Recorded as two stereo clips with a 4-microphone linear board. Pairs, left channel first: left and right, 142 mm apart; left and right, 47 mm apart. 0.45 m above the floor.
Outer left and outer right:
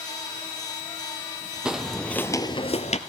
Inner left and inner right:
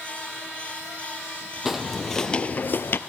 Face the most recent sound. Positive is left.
turn(degrees=50)  # may be behind; listen again after turning